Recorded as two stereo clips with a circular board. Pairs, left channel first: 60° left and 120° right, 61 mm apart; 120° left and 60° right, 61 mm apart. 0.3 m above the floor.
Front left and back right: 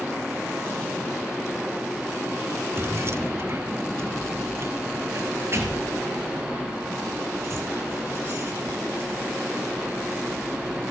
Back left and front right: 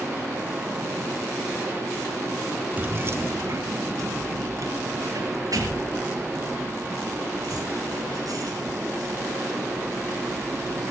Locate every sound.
2.8 s keys jangling: 105° right, 0.9 m; by 10.8 s 75° right, 10 m